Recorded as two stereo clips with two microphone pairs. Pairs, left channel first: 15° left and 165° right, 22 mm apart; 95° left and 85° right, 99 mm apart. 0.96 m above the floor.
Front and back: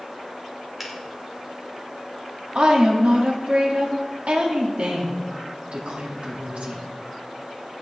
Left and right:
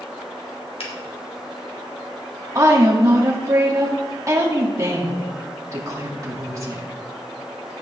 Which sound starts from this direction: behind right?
A woman speaking, at 2.5 s.